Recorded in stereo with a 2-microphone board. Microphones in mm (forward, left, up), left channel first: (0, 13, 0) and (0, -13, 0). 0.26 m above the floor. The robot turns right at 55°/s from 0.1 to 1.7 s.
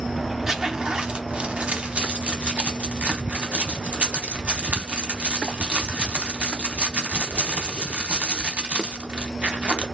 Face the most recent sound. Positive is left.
turn(degrees=-60)  # may be behind; listen again after turning